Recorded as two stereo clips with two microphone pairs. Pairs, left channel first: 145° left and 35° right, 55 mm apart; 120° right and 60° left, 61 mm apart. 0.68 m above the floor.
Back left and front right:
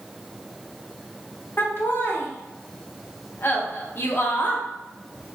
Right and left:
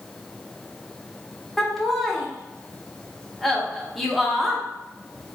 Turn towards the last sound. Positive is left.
turn(degrees=150)